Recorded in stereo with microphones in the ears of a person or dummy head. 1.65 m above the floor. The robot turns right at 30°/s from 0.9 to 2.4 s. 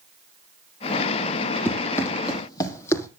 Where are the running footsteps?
10° left (ahead or behind), 3.5 m; by 3.1 s 15° left (ahead or behind), 4 m.